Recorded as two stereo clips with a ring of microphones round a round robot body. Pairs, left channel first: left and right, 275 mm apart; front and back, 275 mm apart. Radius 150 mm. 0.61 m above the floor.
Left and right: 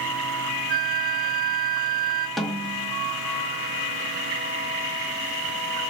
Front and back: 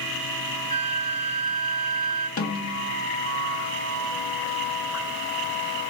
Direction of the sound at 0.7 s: 75° right.